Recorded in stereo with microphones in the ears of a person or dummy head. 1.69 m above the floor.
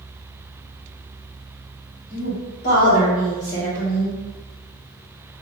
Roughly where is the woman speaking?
Left.